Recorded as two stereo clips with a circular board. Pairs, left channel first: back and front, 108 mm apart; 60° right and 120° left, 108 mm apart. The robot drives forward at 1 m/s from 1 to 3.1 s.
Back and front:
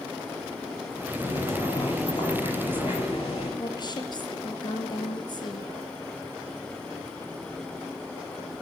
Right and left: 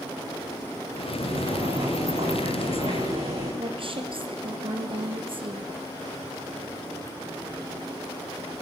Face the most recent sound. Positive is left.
turn(degrees=140)